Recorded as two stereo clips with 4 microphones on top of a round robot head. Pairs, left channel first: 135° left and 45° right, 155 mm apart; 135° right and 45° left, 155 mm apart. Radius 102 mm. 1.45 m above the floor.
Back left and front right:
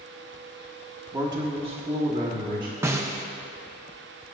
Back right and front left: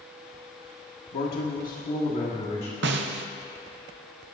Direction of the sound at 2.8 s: 30° left.